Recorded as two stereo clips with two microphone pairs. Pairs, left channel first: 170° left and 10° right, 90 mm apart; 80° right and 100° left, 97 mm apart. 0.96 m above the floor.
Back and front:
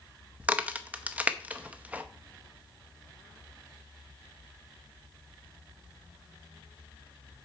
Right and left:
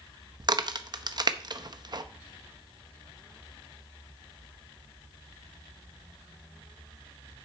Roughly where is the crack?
Ahead left.